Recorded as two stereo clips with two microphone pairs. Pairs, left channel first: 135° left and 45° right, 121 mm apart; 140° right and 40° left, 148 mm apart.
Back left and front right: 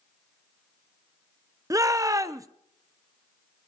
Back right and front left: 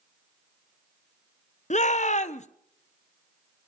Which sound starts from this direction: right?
A shout, at 1.7 s.